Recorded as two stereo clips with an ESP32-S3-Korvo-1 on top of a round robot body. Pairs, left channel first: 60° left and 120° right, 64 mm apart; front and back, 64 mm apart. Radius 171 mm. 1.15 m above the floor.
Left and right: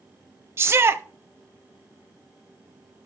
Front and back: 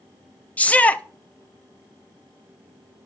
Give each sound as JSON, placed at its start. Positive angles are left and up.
{"t": 0.6, "sound": "a shout", "azimuth_deg": -70, "distance_m": 0.6}